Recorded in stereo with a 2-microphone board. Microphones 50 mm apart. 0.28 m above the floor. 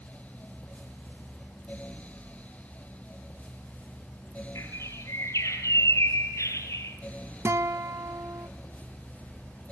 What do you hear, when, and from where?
4.5 s a bird: 80° left, 2.5 m
7.5 s a guitar: 70° right (ahead or behind), 0.7 m